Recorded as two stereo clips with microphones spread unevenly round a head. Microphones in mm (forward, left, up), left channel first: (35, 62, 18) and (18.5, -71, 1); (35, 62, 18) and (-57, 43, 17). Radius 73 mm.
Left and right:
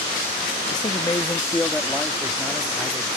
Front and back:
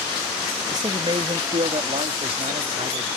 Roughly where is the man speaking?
Behind left.